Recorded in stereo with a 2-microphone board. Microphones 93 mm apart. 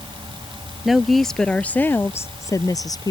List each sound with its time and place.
0.8 s a woman speaking: 5° right (ahead or behind); by 3.1 s 45° left (ahead or behind)